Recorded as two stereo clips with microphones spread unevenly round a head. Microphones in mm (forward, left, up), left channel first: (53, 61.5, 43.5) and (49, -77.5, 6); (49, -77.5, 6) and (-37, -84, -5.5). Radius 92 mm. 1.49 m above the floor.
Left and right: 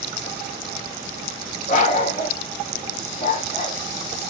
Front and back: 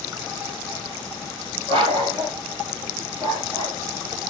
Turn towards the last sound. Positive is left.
turn(degrees=80)